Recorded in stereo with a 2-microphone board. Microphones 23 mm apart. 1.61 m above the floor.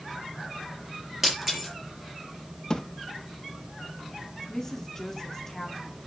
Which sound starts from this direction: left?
A thud, at 2.7 s.